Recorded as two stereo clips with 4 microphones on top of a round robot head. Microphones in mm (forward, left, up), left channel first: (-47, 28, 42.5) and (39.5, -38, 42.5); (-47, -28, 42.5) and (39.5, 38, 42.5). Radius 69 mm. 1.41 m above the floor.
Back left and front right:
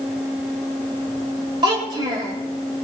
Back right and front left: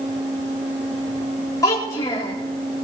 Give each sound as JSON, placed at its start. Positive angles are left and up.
{"t": 1.6, "sound": "a child speaking", "azimuth_deg": -85, "distance_m": 3.5}